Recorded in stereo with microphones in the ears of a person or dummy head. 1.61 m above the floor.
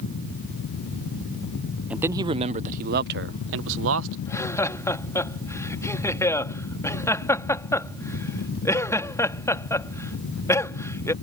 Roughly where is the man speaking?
Centre.